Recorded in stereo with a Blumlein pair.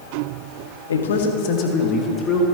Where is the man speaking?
70° left, 1.3 m; by 2.5 s 15° left, 2.5 m.